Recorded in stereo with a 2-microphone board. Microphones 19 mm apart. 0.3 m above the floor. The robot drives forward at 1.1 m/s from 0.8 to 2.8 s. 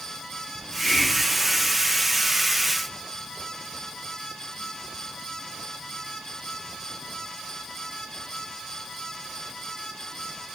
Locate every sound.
0.6 s a hiss: 15° left (ahead or behind), 1.3 m; by 1.7 s 10° left (ahead or behind), 2.5 m